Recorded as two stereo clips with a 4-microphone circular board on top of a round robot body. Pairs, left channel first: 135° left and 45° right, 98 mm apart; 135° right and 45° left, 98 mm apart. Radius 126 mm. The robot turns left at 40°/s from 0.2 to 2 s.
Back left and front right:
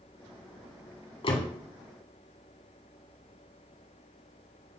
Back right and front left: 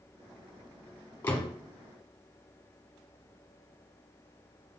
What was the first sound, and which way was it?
A door slam, 155° left.